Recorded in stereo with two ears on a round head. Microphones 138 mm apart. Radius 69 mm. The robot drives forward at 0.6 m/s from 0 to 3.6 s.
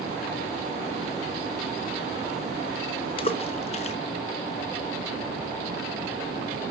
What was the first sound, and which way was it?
A splash, 35° left (ahead or behind).